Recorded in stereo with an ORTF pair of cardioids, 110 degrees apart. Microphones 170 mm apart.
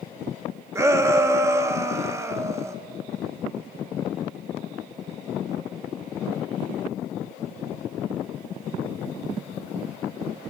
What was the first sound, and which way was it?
A shout, 15° right.